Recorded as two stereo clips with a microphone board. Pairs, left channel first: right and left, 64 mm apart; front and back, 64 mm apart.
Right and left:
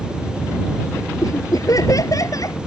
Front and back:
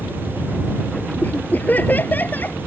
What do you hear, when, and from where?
1.2 s laughter: 60° right